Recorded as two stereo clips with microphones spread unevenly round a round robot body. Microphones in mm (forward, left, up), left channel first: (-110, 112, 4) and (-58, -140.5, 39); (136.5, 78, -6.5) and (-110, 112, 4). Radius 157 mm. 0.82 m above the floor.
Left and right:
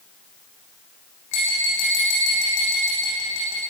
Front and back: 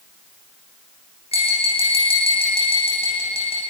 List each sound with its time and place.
1.3 s tapping: 60° left, 9 m